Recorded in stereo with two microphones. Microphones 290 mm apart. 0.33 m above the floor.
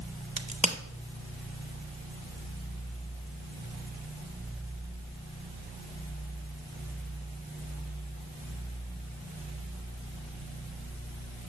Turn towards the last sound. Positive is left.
turn(degrees=-25)  # may be behind; listen again after turning